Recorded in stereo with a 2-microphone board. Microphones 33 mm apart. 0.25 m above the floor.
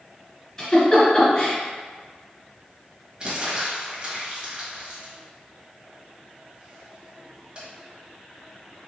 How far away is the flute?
I don't hear a flute.